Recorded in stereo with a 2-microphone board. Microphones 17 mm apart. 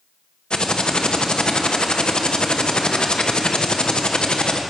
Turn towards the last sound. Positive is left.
turn(degrees=55)  # may be behind; listen again after turning